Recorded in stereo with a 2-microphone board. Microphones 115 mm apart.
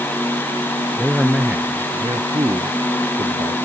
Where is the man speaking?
Centre (ahead or behind); by 3.6 s 55° right (ahead or behind).